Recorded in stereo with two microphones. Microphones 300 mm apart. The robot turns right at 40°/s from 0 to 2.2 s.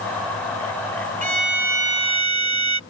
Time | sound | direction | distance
1.2 | a violin | 155° right | ?